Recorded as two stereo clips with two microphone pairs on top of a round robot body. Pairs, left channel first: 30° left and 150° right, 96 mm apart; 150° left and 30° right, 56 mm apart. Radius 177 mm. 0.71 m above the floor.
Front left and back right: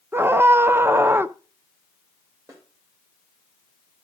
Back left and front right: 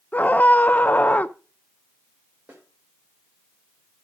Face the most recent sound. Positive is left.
turn(degrees=-90)